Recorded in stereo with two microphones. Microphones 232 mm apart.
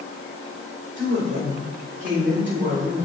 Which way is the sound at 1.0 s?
50° right (ahead or behind).